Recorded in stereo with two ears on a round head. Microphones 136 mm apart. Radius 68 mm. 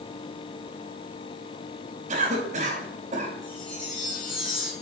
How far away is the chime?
About 6 m.